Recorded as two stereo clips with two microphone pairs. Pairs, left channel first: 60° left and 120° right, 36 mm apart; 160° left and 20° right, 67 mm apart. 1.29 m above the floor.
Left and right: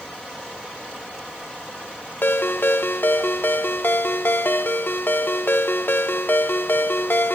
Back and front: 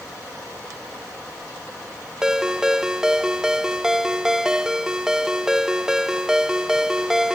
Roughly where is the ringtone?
Ahead left.